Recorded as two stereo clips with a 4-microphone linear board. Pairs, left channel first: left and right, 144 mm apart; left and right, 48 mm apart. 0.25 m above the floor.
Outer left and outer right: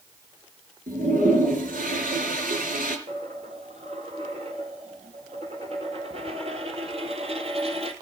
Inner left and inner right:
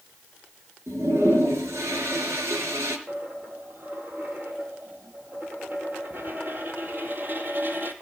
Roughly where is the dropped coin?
Right.